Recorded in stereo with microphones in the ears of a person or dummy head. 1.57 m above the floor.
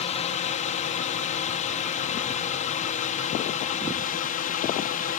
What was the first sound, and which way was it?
A drone, 35° left (ahead or behind).